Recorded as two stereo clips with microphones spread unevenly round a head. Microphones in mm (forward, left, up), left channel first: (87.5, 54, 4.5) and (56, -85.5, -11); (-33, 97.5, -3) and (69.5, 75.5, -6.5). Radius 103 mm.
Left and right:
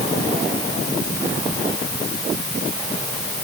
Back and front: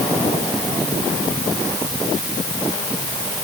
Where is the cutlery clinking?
I don't hear cutlery clinking.